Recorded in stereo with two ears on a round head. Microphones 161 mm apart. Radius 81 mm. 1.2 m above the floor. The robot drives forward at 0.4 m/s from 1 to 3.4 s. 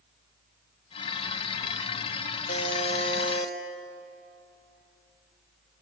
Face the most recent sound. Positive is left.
turn(degrees=40)  # may be behind; listen again after turning